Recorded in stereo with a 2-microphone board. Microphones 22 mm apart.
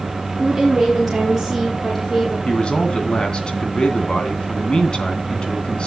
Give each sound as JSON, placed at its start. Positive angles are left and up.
{"t": 0.4, "sound": "a woman speaking", "side_deg": 0, "distance_m": 3.5}
{"t": 2.5, "sound": "a man speaking", "side_deg": 40, "distance_m": 2.5}